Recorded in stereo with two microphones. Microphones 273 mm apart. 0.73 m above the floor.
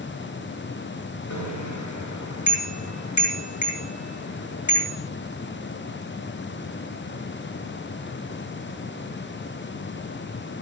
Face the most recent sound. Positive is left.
turn(degrees=80)